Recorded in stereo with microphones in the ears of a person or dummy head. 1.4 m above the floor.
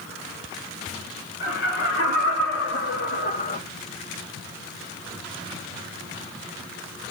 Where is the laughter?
60° left (ahead or behind), 4 m; by 3.6 s 30° left (ahead or behind), 1.1 m.